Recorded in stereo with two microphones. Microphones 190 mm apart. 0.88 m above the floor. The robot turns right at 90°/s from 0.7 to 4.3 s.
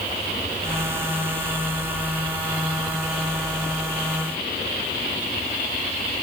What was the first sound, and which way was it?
Only background noise.